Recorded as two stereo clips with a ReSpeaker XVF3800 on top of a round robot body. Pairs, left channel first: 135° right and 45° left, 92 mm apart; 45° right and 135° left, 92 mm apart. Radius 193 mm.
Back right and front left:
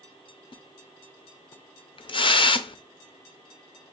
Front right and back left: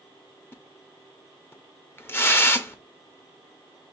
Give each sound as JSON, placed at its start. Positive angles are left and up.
{"t": 0.5, "sound": "a splash", "azimuth_deg": -110, "distance_m": 0.7}